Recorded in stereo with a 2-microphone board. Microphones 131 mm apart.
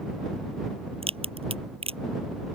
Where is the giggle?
I don't hear a giggle.